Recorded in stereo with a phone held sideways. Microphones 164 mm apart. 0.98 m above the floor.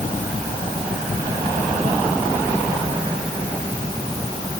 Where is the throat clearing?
No throat clearing in this recording.